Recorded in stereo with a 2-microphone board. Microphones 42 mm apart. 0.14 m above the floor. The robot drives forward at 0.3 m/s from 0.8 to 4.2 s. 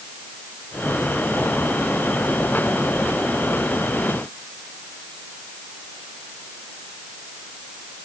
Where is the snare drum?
I don't hear a snare drum.